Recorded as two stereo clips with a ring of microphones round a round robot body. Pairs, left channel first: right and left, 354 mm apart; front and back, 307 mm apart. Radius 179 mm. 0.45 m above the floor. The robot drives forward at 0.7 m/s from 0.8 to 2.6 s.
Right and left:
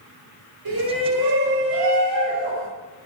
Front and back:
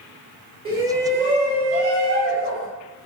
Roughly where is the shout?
Left.